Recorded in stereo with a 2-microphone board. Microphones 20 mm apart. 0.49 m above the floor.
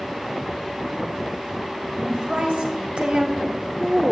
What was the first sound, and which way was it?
A woman speaking, 55° right (ahead or behind).